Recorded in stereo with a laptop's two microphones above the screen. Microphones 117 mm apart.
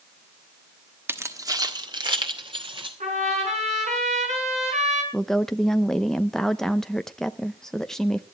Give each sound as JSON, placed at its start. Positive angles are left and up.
{"t": 1.1, "sound": "keys jangling", "side_deg": -20, "distance_m": 1.1}
{"t": 3.0, "sound": "a trumpet", "side_deg": -85, "distance_m": 5.5}
{"t": 5.1, "sound": "a woman speaking", "side_deg": 5, "distance_m": 0.7}